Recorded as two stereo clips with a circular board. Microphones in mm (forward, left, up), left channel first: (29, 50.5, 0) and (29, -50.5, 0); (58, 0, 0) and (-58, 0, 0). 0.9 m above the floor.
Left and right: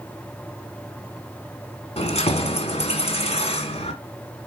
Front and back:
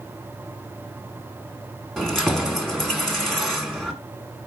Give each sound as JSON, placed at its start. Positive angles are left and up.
{"t": 2.0, "sound": "keys jangling", "azimuth_deg": 85, "distance_m": 1.5}